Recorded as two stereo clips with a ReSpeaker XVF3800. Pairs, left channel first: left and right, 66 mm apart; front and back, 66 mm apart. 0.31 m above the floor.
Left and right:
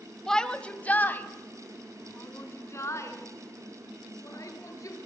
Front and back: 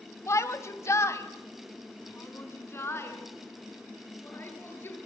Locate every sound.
0.3 s a shout: 10° left, 1.5 m; by 5.1 s 55° left, 5.5 m